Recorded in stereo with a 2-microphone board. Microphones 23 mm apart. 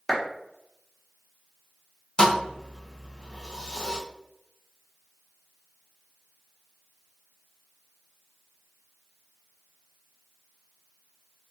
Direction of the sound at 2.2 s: 30° left (ahead or behind).